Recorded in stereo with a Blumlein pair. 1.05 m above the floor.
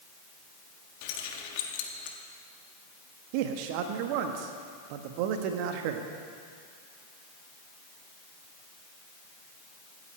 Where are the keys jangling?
45° left, 1.5 m.